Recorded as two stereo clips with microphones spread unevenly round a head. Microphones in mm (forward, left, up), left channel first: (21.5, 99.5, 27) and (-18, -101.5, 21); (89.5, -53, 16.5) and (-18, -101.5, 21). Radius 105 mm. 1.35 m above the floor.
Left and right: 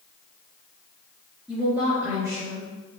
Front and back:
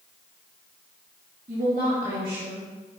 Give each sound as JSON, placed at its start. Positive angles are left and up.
{"t": 1.5, "sound": "a woman speaking", "azimuth_deg": 170, "distance_m": 2.0}